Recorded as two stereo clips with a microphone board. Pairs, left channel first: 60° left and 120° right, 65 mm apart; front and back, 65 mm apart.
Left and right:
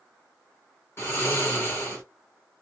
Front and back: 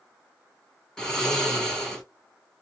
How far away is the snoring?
About 1.3 m.